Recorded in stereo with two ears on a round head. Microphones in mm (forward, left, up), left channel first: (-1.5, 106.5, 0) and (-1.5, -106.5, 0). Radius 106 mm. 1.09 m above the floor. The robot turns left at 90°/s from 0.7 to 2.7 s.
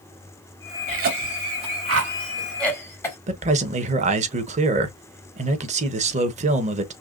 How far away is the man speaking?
About 0.9 m.